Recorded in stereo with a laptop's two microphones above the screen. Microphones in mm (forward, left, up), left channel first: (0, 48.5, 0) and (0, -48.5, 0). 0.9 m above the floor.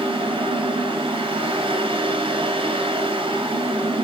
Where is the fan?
70° right (ahead or behind), 3 m.